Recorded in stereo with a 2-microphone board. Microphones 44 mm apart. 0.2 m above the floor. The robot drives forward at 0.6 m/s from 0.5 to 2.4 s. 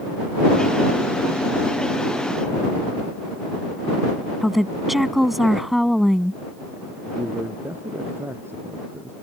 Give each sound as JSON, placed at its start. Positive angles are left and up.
{"t": 4.4, "sound": "a woman speaking", "side_deg": -5}
{"t": 7.1, "sound": "a man speaking", "side_deg": -60}